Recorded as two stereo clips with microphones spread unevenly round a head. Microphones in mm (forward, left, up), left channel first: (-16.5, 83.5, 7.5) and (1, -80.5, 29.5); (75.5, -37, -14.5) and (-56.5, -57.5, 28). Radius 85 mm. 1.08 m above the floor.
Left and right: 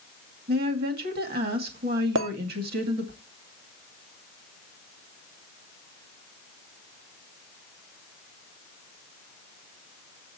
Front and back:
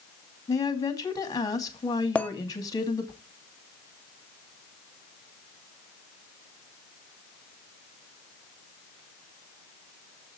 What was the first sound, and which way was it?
A woman speaking, 50° right.